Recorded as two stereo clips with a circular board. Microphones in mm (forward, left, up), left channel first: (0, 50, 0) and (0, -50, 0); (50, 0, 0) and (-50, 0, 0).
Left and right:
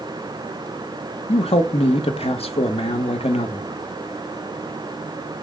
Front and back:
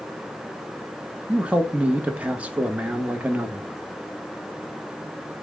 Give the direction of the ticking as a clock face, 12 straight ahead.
No ticking in this recording.